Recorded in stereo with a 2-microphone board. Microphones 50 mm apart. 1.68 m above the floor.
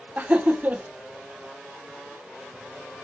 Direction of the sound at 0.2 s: 30° right (ahead or behind).